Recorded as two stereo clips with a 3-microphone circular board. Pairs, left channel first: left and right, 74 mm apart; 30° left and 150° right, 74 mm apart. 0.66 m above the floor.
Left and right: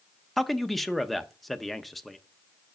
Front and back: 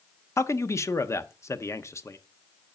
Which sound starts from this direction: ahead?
A man speaking, at 0.4 s.